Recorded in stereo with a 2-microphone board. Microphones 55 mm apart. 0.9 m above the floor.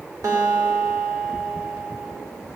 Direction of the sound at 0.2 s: 85° right.